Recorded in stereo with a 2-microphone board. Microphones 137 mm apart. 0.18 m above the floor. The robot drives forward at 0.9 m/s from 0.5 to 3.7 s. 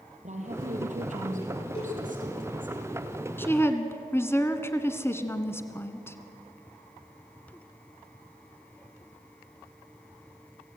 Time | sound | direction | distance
0.2 | a woman speaking | 60° right (ahead or behind) | 5 m
1.8 | a cowbell | 45° left (ahead or behind) | 9.5 m
3.4 | a woman speaking | 15° left (ahead or behind) | 1.7 m